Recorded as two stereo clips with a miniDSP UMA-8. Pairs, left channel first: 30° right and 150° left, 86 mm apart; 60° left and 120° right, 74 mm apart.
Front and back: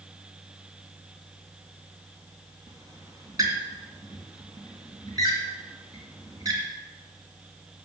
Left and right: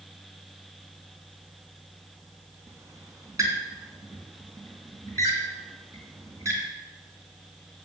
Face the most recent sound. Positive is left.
turn(degrees=-165)